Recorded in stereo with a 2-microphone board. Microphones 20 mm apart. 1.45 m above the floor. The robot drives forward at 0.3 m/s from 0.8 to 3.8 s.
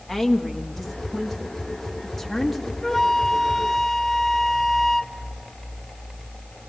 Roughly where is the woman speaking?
Centre.